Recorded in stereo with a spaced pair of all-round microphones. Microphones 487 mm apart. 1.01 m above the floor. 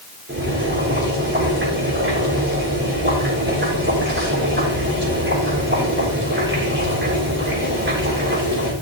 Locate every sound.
0.3 s boiling: 20° right (ahead or behind), 7 m